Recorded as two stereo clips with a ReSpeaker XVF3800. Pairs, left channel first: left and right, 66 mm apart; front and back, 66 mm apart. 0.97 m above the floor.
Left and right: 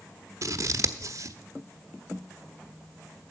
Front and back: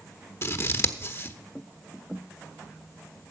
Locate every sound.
0.4 s scissors: 50° right, 0.9 m